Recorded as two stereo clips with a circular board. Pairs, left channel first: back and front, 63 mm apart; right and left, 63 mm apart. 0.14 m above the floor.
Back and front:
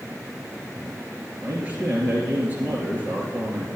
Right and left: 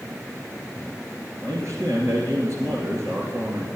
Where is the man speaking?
60° left, 2 m.